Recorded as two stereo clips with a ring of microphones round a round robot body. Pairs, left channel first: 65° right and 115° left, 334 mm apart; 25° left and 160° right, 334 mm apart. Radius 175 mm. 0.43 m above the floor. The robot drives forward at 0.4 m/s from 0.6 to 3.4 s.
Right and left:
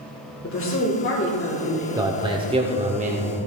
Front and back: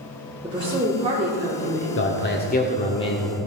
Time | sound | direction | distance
0.4 | a woman speaking | 90° right | 1.7 m
2.0 | a man speaking | 40° left | 1.1 m